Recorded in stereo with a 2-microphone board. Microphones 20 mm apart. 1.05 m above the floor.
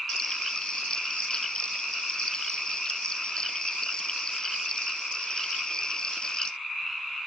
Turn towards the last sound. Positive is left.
turn(degrees=40)  # may be behind; listen again after turning